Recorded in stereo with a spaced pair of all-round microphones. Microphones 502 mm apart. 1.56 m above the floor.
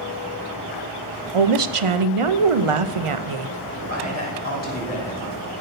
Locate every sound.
1.3 s a woman speaking: 85° right, 0.7 m
3.8 s a man speaking: 30° left (ahead or behind), 4.5 m